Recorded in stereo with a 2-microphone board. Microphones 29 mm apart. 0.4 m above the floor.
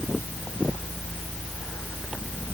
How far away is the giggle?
No giggle in this recording.